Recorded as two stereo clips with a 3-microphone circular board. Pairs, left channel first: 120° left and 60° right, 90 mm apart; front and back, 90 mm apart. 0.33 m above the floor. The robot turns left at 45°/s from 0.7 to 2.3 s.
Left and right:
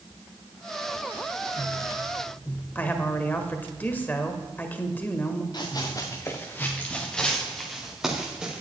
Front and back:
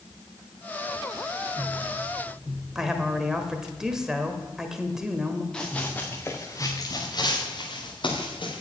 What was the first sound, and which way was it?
A woman speaking, 105° left.